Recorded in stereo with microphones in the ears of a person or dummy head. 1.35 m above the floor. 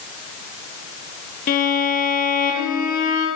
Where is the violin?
50° left (ahead or behind), 7 m.